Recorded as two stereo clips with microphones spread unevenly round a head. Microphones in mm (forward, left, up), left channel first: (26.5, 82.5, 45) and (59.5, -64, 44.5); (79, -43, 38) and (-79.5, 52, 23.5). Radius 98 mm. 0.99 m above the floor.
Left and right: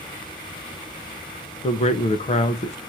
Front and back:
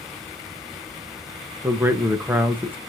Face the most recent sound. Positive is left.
turn(degrees=75)